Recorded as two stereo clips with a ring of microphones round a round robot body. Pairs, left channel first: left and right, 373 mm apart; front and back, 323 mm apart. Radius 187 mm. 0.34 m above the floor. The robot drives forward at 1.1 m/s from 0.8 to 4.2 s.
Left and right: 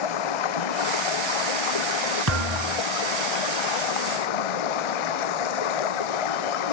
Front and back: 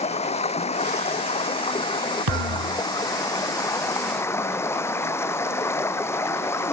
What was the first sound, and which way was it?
Running water, 70° left.